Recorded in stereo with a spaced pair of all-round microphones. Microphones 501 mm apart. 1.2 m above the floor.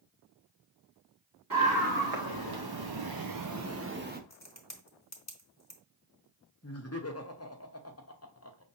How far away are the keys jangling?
I don't hear keys jangling.